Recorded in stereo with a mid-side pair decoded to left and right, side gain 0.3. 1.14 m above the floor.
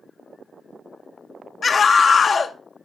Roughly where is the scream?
Ahead left.